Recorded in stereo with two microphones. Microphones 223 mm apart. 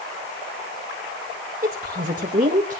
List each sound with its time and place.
1.6 s a woman speaking: 40° right (ahead or behind), 1.6 m; by 2.8 s 35° right (ahead or behind), 1.7 m